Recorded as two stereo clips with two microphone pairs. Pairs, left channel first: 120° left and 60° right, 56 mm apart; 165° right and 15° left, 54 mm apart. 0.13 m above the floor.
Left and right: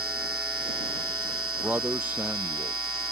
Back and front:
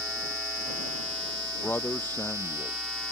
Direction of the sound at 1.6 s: 110° right.